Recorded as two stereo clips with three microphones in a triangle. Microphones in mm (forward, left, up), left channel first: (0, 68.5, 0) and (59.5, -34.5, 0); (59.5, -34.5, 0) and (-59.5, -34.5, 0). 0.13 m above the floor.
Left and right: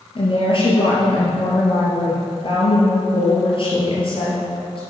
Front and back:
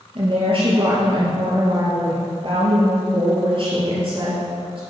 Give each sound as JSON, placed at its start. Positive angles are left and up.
{"t": 0.1, "sound": "a woman speaking", "azimuth_deg": 150, "distance_m": 3.0}